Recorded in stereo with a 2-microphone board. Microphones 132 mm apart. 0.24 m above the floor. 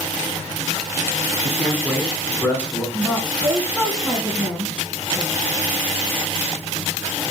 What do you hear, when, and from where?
1.4 s a man speaking: 10° left (ahead or behind), 1.7 m
2.9 s a woman speaking: 5° right (ahead or behind), 2.0 m